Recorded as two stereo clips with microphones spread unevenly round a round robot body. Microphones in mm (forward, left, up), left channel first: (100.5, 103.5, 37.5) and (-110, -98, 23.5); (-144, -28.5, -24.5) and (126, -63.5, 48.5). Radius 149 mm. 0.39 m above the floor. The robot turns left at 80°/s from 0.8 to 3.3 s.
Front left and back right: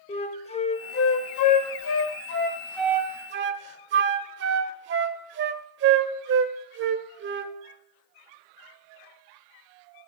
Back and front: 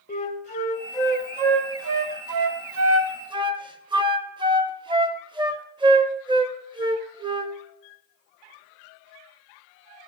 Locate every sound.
0.1 s a flute: 115° left, 0.6 m; by 7.5 s 85° right, 0.6 m